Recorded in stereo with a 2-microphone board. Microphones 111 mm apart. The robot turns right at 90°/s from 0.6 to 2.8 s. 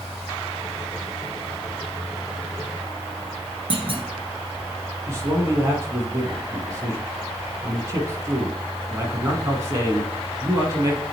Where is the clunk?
55° right (ahead or behind), 1.4 m.